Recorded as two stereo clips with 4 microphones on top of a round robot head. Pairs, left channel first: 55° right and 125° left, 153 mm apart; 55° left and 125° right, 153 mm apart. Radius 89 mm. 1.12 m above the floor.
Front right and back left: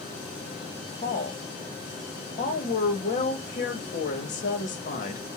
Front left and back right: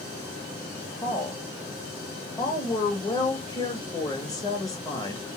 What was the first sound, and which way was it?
A woman speaking, 15° right.